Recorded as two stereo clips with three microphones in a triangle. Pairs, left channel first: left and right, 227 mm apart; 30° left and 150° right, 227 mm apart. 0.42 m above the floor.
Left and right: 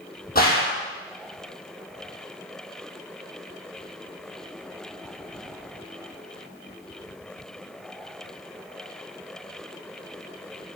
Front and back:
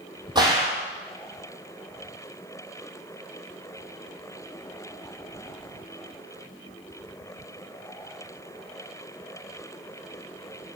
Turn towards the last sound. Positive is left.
turn(degrees=140)